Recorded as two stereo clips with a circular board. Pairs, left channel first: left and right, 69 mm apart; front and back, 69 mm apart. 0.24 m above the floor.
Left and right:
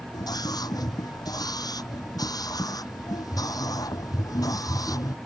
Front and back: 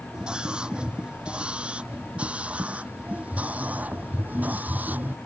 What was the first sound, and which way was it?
A scream, 105° left.